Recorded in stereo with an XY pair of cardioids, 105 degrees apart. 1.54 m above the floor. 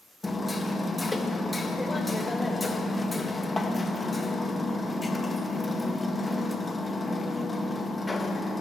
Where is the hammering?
15° left, 1.5 m.